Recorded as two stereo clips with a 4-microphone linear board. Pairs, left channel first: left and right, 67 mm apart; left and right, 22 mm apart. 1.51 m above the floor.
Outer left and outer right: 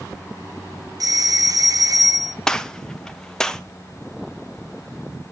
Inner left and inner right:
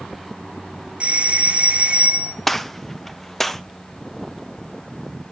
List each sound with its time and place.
1.0 s a doorbell: 65° right (ahead or behind), 0.7 m
2.5 s a gunshot: 10° left (ahead or behind), 0.7 m